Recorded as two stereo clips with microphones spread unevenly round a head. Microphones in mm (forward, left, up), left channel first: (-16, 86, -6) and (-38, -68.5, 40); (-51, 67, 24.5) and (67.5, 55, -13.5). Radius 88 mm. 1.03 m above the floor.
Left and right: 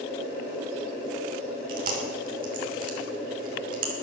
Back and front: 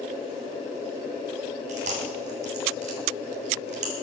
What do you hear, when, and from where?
1.7 s chewing: 55° right, 3 m